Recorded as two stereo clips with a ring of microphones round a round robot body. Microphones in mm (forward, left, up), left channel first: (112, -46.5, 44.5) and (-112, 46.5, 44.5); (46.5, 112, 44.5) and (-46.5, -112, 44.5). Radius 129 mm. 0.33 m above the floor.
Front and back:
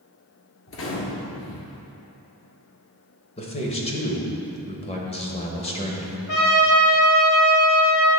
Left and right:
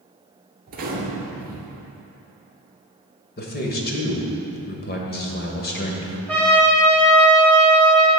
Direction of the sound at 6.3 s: 15° right.